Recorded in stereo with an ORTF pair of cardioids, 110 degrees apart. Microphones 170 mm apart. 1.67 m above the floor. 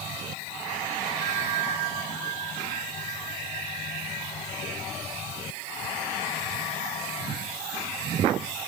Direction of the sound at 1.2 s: 50° right.